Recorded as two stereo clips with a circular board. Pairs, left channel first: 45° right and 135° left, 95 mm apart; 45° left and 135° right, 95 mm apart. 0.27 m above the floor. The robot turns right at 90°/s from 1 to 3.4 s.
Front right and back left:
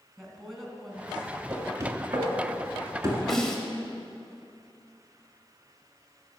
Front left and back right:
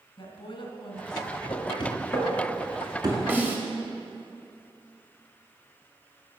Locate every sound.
0.2 s a woman speaking: 45° left, 2 m; by 1.3 s 70° left, 2 m
1.5 s knocking: 50° left, 1.9 m; by 3.2 s 160° right, 1.9 m
3.3 s a snare drum: 130° right, 1.1 m; by 3.6 s 120° right, 1.1 m